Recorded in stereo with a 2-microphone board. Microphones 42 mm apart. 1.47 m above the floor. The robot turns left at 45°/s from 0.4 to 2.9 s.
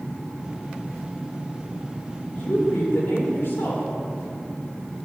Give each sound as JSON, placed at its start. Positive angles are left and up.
{"t": 2.4, "sound": "a woman speaking", "side_deg": 50, "distance_m": 4.5}